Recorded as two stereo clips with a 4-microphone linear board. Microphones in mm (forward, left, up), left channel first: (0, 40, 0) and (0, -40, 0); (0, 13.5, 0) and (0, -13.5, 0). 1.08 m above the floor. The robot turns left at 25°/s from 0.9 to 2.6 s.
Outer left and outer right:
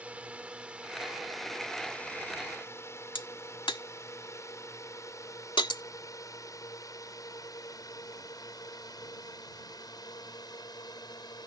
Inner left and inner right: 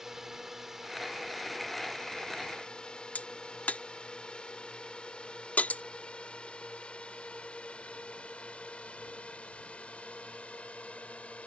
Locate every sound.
0.0 s a drone: 15° right (ahead or behind); by 11.5 s 55° left (ahead or behind)
3.1 s a crack: 80° left